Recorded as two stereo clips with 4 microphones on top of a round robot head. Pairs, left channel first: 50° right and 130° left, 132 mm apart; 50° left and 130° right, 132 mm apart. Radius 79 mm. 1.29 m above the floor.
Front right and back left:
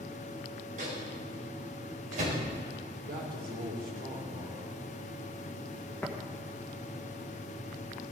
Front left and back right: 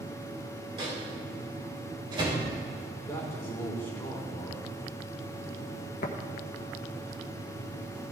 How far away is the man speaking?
About 3.5 m.